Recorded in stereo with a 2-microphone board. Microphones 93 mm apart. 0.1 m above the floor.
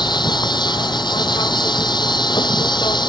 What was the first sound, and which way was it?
An insect, 50° left (ahead or behind).